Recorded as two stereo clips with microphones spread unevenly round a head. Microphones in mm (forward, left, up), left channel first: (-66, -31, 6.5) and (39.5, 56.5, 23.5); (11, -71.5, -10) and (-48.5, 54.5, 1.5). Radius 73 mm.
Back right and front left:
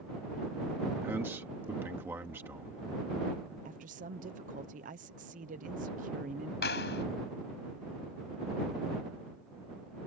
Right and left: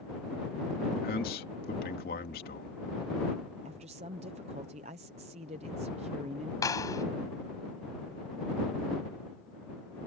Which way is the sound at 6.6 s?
130° right.